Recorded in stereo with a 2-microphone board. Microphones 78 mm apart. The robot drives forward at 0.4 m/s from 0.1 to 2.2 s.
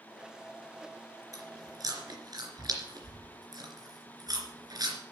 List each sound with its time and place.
1.3 s chewing: 50° right (ahead or behind), 3 m; by 5.0 s 60° right (ahead or behind), 2.5 m